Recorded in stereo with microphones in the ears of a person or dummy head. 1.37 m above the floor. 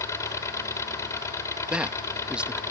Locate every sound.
0.0 s an engine running: 20° left (ahead or behind)
1.7 s a man speaking: 5° right (ahead or behind)